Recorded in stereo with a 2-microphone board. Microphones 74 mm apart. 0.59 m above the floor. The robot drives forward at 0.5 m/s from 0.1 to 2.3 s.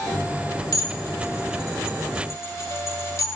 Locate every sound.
0.7 s dishes clattering: 50° left (ahead or behind), 2.0 m; by 3.3 s 40° left (ahead or behind), 2.5 m